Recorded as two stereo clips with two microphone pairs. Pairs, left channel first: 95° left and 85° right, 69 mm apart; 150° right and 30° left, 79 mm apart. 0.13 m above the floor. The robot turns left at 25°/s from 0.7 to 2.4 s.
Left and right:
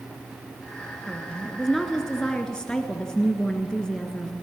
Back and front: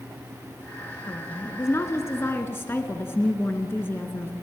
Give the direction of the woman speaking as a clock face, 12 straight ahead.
5 o'clock.